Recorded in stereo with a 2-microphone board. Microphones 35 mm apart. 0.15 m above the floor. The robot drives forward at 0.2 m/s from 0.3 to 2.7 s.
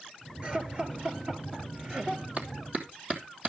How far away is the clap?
About 3.5 m.